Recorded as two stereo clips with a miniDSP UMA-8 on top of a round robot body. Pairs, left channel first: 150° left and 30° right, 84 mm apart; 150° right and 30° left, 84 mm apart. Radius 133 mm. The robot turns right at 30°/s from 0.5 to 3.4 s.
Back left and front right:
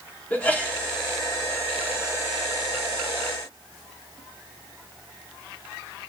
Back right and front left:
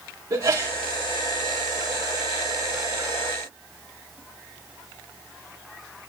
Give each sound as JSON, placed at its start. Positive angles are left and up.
{"t": 0.3, "sound": "a sneeze", "azimuth_deg": 80, "distance_m": 3.5}